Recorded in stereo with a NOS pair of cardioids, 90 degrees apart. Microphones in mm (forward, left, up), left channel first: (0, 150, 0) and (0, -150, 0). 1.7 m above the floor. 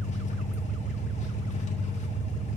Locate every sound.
0.0 s an engine running: 25° left, 1.1 m